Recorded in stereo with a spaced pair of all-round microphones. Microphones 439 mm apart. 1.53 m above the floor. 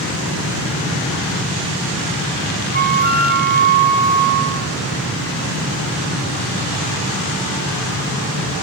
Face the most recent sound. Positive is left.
turn(degrees=-20)  # may be behind; listen again after turning